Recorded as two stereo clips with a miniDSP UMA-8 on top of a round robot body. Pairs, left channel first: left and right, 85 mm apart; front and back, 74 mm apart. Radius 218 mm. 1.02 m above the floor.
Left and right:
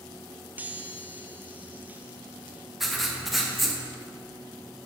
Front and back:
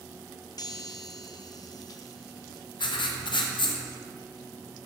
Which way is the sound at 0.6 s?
20° right.